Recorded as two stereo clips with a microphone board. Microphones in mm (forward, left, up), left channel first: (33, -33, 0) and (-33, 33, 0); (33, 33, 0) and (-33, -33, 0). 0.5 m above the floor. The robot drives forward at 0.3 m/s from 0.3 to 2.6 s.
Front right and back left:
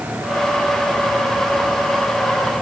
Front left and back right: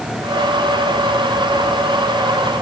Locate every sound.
Only background noise.